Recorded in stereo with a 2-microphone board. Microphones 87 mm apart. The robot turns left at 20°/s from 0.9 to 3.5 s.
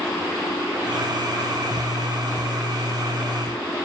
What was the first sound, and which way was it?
Only background noise.